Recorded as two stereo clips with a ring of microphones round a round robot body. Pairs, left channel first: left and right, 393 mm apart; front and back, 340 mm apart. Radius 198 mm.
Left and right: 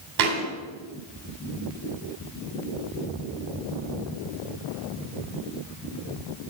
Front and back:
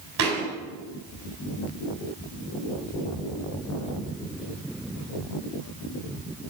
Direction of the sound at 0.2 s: 125° right.